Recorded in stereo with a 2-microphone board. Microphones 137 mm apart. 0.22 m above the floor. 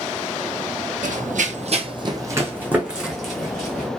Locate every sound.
1.0 s running footsteps: 75° right (ahead or behind), 0.6 m; by 3.9 s 5° left (ahead or behind), 1.4 m